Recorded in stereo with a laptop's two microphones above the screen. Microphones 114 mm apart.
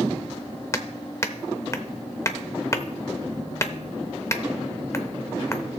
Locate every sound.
0.7 s hammering: 25° left (ahead or behind), 0.6 m